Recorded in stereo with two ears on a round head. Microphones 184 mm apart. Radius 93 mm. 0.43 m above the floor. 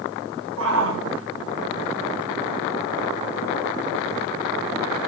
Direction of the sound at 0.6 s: 75° right (ahead or behind).